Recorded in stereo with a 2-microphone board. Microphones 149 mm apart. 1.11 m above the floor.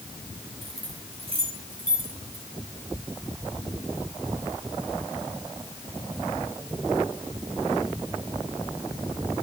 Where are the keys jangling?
45° right (ahead or behind), 4.5 m; by 2.5 s 30° right (ahead or behind), 5 m.